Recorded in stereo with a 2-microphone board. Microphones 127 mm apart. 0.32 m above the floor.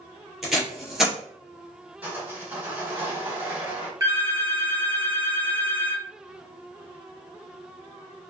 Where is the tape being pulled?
5° right (ahead or behind), 2.0 m.